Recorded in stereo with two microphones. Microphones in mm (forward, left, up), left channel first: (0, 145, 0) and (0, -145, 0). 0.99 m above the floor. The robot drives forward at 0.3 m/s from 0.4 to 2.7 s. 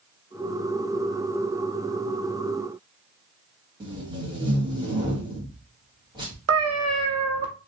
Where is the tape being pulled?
15° right (ahead or behind), 1.1 m.